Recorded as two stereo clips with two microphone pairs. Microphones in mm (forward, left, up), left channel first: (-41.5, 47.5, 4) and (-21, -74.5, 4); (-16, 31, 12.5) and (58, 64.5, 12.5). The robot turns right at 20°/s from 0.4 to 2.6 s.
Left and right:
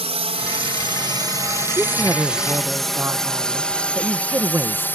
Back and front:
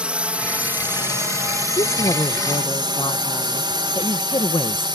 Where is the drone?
50° right; by 5.0 s 25° left.